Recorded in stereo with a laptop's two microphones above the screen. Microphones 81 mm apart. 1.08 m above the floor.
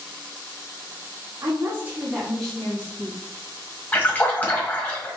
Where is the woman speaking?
40° right (ahead or behind), 1.4 m; by 3.2 s 35° left (ahead or behind), 1.5 m.